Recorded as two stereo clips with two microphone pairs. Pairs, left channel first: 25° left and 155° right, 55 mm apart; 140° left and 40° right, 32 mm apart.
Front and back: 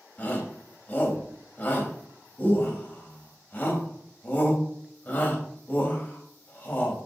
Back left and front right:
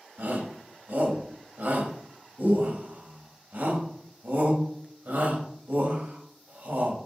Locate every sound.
0.2 s a shout: 35° right, 3.5 m